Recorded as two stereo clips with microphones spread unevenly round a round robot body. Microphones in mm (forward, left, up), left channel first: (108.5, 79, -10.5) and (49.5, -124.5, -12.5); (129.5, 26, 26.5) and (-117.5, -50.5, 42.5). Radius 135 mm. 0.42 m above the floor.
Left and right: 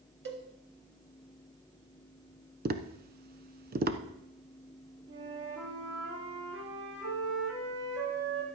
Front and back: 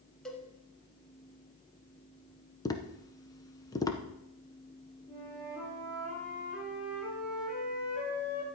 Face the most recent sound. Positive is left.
turn(degrees=-80)